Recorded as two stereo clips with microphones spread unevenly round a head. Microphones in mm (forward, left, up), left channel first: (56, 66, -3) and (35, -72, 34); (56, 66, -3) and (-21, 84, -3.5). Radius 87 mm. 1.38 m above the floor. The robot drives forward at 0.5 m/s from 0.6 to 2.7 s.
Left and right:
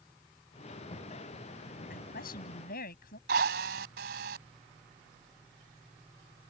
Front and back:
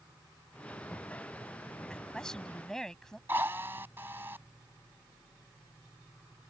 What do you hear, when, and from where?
1.9 s a woman speaking: 70° left
3.3 s a drill: 115° right